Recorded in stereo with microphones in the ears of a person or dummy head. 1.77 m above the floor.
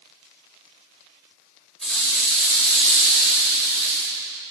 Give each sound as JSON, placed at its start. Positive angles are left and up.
{"t": 1.8, "sound": "a rattle", "side_deg": 0, "distance_m": 4.5}